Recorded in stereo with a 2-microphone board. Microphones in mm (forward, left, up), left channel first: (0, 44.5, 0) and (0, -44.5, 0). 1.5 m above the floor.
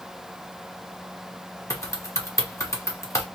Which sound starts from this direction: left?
Typing on a keyboard, at 1.7 s.